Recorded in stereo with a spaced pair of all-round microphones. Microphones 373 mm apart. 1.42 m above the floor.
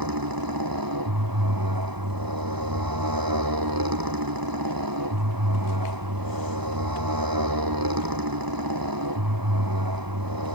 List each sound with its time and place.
0.0 s a motorcycle: 65° right (ahead or behind)